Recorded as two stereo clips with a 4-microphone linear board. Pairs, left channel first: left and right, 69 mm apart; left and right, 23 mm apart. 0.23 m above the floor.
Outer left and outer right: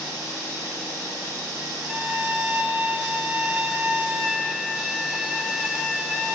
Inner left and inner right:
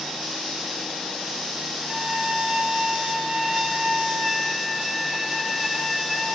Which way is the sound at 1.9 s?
5° right (ahead or behind).